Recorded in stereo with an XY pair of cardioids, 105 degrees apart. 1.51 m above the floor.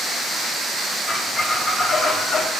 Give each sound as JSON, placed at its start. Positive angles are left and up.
{"t": 1.1, "sound": "a squeak", "azimuth_deg": 50, "distance_m": 1.6}